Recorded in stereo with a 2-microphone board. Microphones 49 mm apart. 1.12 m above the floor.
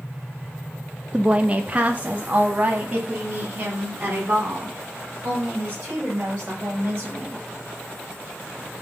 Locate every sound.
1.1 s a woman speaking: 20° right (ahead or behind), 0.5 m; by 7.4 s 35° right (ahead or behind), 5 m